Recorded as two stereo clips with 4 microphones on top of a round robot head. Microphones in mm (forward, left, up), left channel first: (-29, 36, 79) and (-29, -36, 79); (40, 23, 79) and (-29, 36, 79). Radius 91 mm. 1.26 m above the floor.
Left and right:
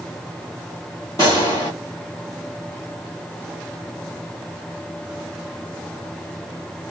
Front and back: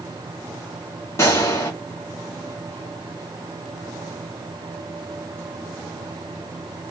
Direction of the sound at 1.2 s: 35° left.